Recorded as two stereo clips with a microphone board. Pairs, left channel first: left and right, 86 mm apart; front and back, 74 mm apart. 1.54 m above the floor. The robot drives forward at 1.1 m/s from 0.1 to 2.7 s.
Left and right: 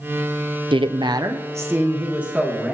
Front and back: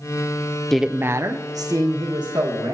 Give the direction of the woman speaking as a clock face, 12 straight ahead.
3 o'clock.